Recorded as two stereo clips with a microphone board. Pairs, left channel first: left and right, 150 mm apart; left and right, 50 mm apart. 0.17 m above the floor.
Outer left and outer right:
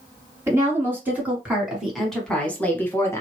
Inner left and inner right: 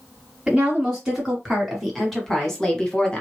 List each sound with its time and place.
0.5 s a woman speaking: 20° right (ahead or behind), 1.7 m; by 3.2 s 20° left (ahead or behind), 1.2 m